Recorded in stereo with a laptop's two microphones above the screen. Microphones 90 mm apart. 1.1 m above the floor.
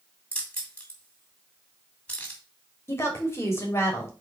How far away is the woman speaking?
About 2.5 m.